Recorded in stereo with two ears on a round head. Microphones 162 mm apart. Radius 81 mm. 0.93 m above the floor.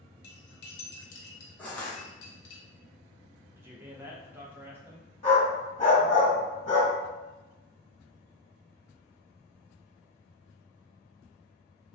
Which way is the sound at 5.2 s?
35° left (ahead or behind).